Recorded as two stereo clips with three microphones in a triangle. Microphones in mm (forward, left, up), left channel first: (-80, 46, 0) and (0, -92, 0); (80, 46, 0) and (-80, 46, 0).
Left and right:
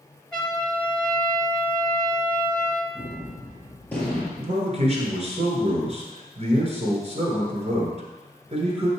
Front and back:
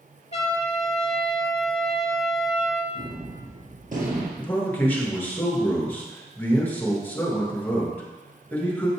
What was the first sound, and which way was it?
A trumpet, 30° left.